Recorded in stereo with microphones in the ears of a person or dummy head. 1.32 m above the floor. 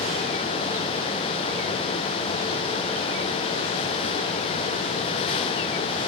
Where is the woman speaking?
No woman speaking in this recording.